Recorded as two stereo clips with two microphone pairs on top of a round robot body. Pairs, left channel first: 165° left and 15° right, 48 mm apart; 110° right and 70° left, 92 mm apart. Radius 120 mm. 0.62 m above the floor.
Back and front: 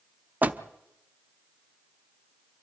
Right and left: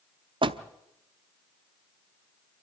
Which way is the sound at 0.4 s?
40° left.